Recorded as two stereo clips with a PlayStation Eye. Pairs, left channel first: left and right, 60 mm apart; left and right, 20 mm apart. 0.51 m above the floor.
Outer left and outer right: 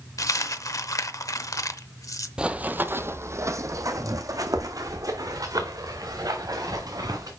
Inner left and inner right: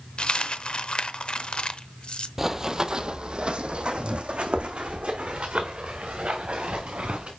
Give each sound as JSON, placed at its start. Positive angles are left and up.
{"t": 0.2, "sound": "a dropped coin", "side_deg": 60, "distance_m": 0.7}
{"t": 2.4, "sound": "running footsteps", "side_deg": -15, "distance_m": 0.6}